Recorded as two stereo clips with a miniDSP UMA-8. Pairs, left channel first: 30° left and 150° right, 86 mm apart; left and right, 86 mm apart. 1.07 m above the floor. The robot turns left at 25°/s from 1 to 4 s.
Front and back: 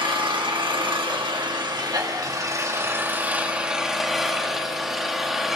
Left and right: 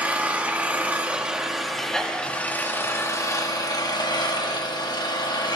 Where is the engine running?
160° right, 2 m; by 5.6 s 125° left, 2 m.